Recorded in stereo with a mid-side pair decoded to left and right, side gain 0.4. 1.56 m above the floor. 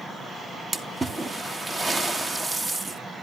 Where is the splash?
30° right, 1.4 m.